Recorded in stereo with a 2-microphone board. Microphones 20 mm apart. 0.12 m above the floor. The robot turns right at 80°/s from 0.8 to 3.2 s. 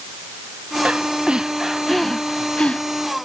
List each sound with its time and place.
0.8 s breathing: 90° right; by 2.8 s 70° left